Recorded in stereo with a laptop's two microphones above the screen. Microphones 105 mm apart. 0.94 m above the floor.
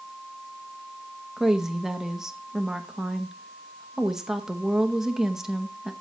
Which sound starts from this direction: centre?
A woman speaking, at 1.4 s.